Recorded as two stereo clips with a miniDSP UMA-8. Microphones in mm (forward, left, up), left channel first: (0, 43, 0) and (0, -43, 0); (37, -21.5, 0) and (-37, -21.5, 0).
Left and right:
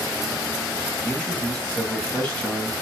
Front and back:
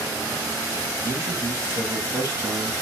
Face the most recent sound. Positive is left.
turn(degrees=160)